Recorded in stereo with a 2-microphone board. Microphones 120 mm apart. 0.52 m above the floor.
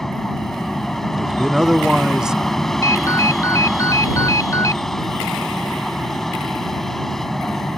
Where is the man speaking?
5° right (ahead or behind).